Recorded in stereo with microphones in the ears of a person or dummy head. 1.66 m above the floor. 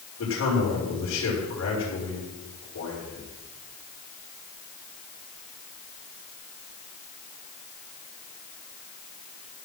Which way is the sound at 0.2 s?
75° left (ahead or behind).